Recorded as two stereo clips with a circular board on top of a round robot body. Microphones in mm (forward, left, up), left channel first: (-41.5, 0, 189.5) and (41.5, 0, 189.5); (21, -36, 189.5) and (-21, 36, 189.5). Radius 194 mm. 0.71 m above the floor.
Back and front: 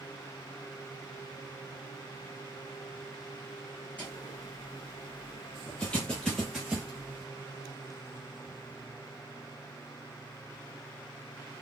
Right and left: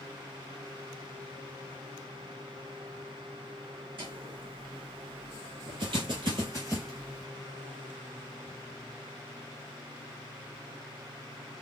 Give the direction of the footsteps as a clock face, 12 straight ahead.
8 o'clock.